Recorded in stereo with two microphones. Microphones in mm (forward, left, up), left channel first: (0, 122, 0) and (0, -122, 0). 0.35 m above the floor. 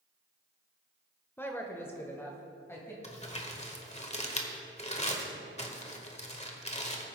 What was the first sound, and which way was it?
A woman speaking, 10° left (ahead or behind).